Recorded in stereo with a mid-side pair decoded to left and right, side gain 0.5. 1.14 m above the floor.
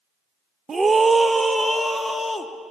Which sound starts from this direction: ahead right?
A scream, at 0.7 s.